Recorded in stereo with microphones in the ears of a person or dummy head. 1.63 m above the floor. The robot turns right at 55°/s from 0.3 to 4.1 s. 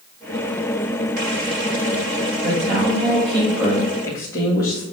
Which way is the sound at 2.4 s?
70° right.